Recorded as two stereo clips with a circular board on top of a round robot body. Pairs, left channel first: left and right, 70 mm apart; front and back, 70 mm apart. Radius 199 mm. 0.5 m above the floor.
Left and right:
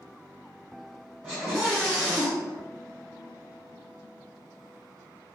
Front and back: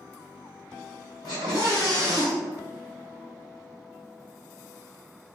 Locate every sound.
1.2 s a scream: straight ahead, 2 m